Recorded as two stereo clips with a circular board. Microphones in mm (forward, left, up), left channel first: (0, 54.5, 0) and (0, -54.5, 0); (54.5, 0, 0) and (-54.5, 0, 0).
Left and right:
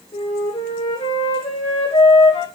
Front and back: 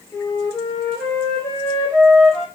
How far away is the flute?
About 9.5 m.